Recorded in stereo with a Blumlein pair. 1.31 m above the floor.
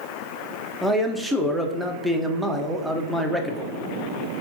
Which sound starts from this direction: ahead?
A man speaking, at 0.8 s.